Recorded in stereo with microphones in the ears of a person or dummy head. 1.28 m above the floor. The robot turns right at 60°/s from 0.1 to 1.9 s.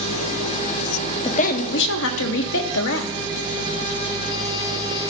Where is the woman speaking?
30° left, 1.3 m; by 3.1 s 70° left, 1.3 m.